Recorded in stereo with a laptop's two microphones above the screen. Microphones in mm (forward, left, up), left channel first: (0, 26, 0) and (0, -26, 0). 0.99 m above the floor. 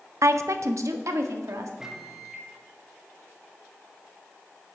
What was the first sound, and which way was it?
A woman speaking, 65° right (ahead or behind).